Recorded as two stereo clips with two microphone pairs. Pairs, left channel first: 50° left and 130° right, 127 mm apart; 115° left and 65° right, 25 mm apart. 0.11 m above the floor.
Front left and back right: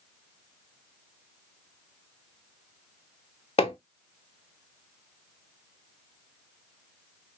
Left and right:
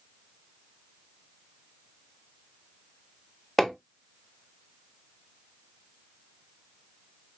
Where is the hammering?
35° left, 0.8 m.